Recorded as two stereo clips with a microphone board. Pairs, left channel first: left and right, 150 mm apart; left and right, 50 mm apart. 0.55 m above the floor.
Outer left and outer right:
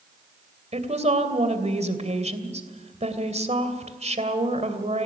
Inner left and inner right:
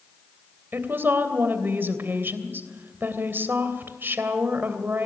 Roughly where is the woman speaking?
Right.